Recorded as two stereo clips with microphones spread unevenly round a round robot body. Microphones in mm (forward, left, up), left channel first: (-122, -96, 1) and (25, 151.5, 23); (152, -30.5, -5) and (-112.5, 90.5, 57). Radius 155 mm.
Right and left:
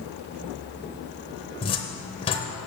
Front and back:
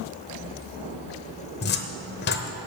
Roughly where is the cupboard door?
Ahead right.